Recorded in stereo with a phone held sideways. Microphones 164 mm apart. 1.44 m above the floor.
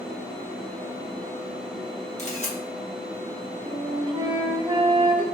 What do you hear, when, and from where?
2.2 s a camera shutter: 45° left (ahead or behind), 1.2 m
3.7 s a flute: 30° right (ahead or behind), 0.6 m